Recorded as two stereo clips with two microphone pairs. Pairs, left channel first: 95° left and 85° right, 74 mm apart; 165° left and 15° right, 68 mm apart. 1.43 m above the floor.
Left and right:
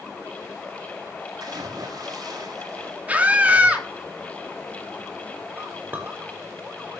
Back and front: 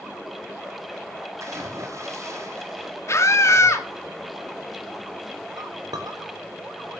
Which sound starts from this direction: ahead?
A clink, at 5.6 s.